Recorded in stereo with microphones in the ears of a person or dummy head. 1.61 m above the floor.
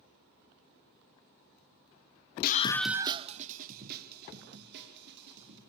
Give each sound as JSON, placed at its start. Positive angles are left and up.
{"t": 2.4, "sound": "a scream", "side_deg": 55, "distance_m": 0.6}